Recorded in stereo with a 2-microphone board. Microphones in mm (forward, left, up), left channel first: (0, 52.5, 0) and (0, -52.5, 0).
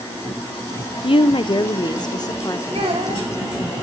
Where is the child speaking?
85° right, 4 m.